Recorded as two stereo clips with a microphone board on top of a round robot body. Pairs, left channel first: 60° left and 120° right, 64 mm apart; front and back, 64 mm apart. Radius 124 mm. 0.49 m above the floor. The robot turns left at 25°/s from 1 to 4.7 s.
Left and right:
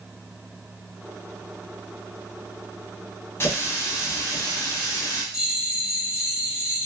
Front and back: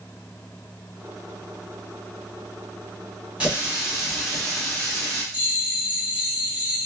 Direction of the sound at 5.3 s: Straight behind.